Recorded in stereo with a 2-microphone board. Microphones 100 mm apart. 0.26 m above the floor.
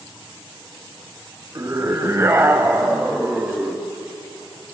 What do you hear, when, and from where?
1.6 s a scream: 30° right (ahead or behind), 1.8 m; by 3.9 s 10° right (ahead or behind), 2 m